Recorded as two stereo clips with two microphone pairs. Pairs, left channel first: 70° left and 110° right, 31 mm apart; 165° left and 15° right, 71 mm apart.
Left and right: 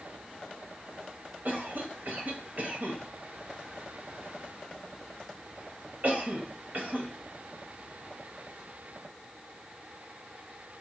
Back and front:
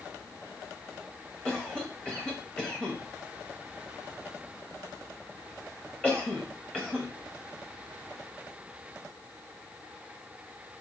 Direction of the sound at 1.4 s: 120° right.